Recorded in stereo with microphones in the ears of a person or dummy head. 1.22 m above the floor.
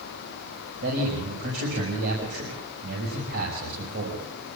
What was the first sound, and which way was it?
A man speaking, 55° right (ahead or behind).